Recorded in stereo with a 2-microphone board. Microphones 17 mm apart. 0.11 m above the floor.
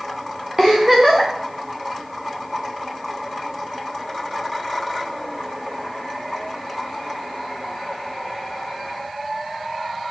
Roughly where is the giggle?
Right.